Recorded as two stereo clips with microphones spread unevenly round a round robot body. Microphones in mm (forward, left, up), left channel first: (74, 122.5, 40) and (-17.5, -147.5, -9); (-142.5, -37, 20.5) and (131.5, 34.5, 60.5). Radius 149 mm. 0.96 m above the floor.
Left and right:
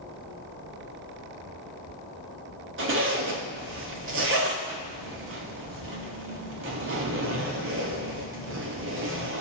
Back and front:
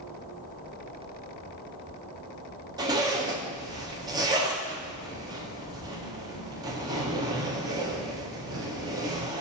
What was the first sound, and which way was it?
A zipper, 65° right.